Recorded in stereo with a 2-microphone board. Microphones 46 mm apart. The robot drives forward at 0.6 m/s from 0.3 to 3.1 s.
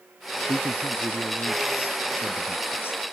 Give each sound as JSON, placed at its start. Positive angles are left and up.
{"t": 0.5, "sound": "a man speaking", "side_deg": 60}